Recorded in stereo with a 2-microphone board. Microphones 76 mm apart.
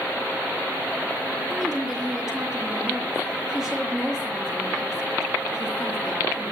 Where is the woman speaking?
5° right (ahead or behind), 7 m.